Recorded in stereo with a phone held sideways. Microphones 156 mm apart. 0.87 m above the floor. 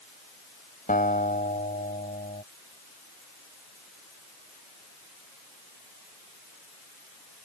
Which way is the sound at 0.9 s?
60° left (ahead or behind).